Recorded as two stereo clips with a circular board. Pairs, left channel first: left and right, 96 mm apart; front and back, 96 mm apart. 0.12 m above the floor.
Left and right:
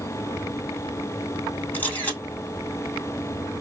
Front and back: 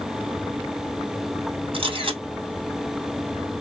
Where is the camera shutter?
160° left, 1.9 m.